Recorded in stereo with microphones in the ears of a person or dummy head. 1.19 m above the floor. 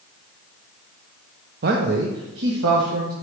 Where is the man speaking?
45° right (ahead or behind), 0.6 m; by 3.1 s 70° right (ahead or behind), 1.4 m.